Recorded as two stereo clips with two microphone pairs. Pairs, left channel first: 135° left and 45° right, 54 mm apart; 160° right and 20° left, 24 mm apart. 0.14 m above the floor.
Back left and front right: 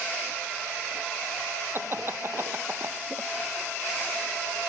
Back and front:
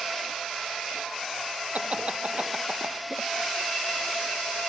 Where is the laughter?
5° right.